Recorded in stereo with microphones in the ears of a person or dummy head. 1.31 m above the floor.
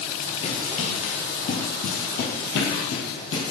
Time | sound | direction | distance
0.4 | running footsteps | 35° left (ahead or behind) | 1.8 m